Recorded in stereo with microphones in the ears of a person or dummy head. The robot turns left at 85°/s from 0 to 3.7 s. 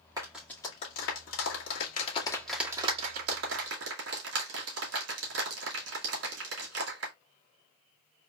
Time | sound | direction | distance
0.2 | a clap | 20° right (ahead or behind) | 2.0 m